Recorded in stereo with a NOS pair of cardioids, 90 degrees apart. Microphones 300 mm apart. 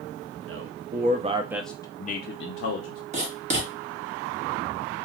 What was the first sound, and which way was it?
A man speaking, 50° right.